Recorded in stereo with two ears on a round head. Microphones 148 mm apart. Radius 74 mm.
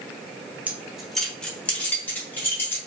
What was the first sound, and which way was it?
Keys jangling, 10° right (ahead or behind).